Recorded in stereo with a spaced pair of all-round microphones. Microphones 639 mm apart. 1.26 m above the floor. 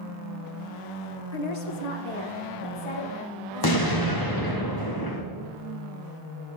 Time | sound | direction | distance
1.3 | a woman speaking | 90° left | 0.9 m
3.6 | an explosion | 35° left (ahead or behind) | 1.0 m